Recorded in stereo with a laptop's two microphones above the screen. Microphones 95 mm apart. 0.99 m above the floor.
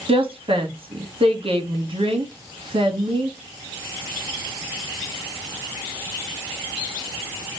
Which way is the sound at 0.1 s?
75° right (ahead or behind).